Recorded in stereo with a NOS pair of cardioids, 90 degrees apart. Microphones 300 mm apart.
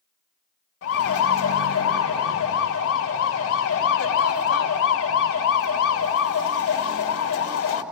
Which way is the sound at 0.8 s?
50° left.